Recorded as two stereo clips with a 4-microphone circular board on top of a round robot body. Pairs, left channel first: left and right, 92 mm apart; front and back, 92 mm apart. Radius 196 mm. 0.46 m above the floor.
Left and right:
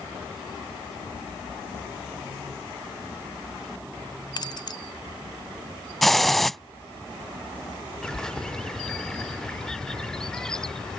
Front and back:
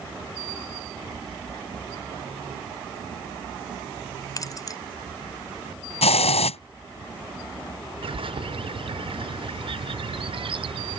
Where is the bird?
175° left.